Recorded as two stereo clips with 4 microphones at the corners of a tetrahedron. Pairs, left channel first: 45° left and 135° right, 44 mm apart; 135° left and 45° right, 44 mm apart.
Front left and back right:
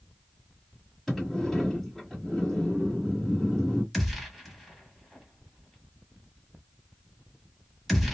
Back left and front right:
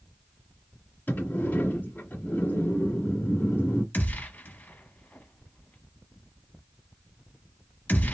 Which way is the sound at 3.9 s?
135° left.